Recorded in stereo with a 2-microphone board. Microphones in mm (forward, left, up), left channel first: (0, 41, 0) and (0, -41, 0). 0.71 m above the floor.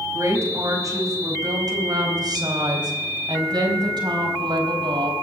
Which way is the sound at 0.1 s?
40° right (ahead or behind).